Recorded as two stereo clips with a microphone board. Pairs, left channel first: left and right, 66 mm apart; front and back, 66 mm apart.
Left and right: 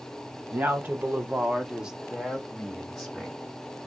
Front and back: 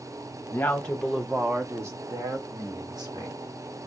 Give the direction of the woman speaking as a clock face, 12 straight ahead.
2 o'clock.